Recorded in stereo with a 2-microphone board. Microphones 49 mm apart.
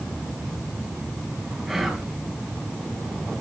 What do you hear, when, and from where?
1.7 s whispering: 5° right (ahead or behind), 3 m